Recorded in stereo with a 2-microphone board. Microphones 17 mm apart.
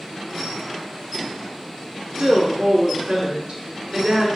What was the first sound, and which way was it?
A woman speaking, 25° right (ahead or behind).